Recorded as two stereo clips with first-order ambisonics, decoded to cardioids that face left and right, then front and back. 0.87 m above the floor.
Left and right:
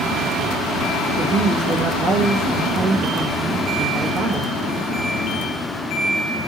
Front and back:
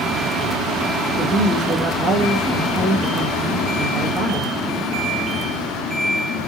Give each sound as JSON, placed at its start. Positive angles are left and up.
{"t": 1.2, "sound": "a woman speaking", "azimuth_deg": -130, "distance_m": 1.3}